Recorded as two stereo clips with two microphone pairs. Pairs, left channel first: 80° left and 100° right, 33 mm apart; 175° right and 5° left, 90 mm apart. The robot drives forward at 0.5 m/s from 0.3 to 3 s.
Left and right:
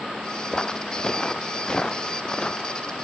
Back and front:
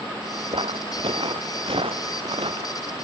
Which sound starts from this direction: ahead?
Footsteps, at 0.5 s.